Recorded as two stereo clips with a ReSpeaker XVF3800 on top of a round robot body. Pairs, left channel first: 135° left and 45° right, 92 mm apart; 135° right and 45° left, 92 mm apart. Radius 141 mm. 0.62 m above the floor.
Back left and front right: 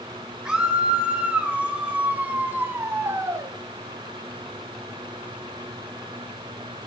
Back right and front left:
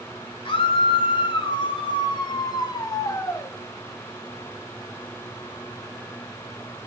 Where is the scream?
125° right, 3 m; by 3.5 s 85° right, 1.5 m.